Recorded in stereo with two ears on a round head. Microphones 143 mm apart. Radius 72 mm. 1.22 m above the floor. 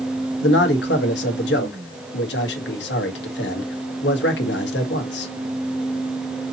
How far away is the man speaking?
About 1.4 m.